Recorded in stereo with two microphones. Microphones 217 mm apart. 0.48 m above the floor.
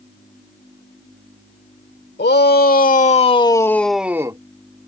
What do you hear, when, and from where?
2.2 s a shout: 50° left (ahead or behind); by 4.4 s 20° right (ahead or behind)